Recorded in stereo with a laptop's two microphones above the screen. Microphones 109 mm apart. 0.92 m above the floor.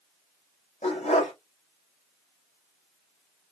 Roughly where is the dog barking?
Left.